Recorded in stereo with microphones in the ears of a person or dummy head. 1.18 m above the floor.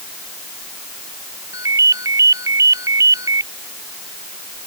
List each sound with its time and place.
1.5 s a ringtone: 20° right (ahead or behind)